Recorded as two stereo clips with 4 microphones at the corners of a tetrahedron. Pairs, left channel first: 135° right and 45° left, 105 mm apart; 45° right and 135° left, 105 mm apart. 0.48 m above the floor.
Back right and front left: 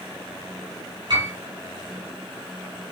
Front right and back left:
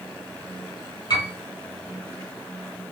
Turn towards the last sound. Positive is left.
turn(degrees=0)